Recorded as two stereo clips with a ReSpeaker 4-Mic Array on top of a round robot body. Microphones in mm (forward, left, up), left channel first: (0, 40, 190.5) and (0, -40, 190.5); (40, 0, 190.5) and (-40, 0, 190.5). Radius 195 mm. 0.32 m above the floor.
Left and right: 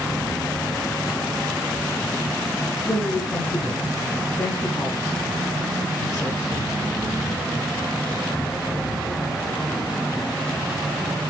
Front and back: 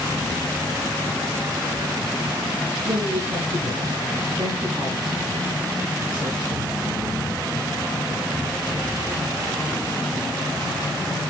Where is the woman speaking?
145° left, 5.5 m.